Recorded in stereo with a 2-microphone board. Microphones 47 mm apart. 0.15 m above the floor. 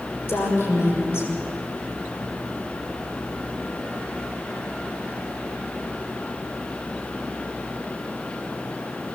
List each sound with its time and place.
0.3 s a woman speaking: 55° left (ahead or behind), 6 m